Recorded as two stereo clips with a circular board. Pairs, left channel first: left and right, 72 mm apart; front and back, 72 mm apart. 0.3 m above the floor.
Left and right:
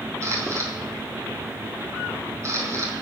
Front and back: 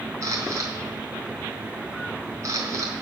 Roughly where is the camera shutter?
Behind right.